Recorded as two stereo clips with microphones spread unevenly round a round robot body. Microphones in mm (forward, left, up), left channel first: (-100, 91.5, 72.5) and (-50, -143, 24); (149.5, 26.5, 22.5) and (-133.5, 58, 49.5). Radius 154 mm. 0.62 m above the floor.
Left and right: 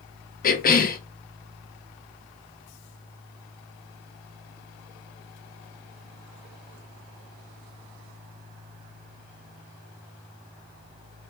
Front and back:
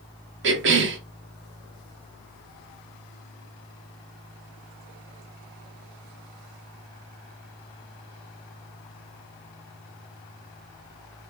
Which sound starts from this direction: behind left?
A cough, at 0.4 s.